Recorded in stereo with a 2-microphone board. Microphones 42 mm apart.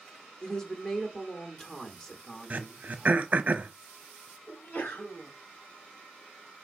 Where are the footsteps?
I don't hear footsteps.